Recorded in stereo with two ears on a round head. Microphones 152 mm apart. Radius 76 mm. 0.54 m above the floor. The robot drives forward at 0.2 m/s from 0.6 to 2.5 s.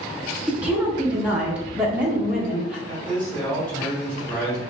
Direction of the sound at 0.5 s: 10° right (ahead or behind).